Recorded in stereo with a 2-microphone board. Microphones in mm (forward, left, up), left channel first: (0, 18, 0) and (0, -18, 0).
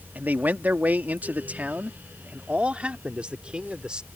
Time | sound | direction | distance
0.1 | a man speaking | 55° right (ahead or behind) | ?